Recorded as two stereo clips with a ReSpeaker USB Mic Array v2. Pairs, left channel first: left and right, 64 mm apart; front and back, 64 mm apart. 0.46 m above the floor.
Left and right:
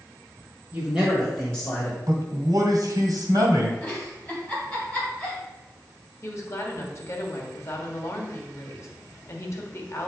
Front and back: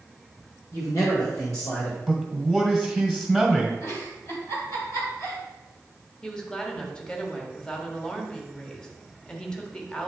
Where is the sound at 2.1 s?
85° right, 2.0 m.